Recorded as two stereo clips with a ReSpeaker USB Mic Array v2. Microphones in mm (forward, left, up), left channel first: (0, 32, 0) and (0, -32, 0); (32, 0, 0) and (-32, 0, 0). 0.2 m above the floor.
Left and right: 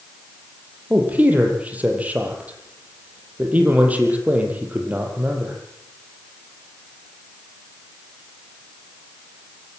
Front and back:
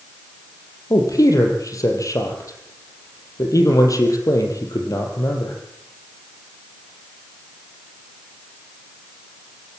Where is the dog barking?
I don't hear a dog barking.